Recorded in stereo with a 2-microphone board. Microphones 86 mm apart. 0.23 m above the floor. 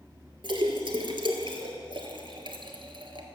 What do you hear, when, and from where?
0.4 s a splash: 75° right (ahead or behind), 1.4 m